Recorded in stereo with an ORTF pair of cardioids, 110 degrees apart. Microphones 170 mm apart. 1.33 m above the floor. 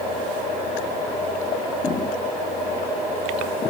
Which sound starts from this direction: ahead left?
Footsteps, at 1.8 s.